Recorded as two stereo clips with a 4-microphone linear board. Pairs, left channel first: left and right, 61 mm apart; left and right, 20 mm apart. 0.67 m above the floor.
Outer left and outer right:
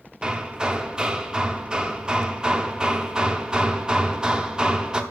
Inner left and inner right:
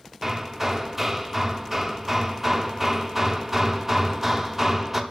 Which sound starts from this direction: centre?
Hammering, at 0.2 s.